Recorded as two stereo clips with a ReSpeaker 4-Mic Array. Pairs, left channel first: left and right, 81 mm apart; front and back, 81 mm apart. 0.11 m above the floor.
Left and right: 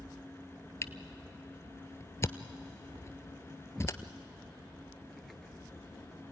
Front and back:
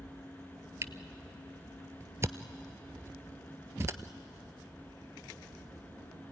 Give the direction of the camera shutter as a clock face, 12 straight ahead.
8 o'clock.